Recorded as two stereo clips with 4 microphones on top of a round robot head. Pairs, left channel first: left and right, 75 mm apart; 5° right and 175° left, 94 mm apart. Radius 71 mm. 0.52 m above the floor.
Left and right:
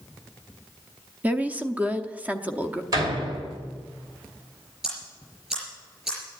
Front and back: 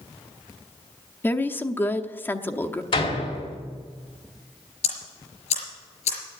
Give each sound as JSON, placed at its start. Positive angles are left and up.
{"t": 1.2, "sound": "a woman speaking", "azimuth_deg": -45, "distance_m": 0.9}
{"t": 2.9, "sound": "a door slam", "azimuth_deg": -40, "distance_m": 2.5}
{"t": 4.8, "sound": "ticking", "azimuth_deg": -5, "distance_m": 5.0}